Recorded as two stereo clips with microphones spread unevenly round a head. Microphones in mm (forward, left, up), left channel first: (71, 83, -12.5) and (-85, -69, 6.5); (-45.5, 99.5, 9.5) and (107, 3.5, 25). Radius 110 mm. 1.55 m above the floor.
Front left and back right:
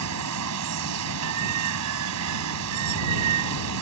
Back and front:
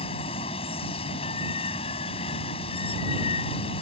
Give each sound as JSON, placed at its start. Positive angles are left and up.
{"t": 0.0, "sound": "running water", "azimuth_deg": -145}